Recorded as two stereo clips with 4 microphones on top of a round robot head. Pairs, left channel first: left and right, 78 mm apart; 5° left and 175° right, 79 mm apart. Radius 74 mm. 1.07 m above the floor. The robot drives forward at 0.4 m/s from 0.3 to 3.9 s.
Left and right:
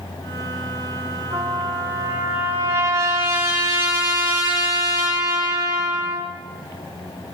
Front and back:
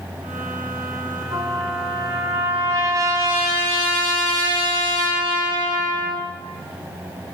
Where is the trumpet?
130° right, 6 m; by 6.3 s 135° right, 6.5 m.